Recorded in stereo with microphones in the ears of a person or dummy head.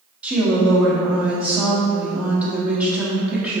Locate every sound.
0.2 s a woman speaking: 10° right (ahead or behind), 0.8 m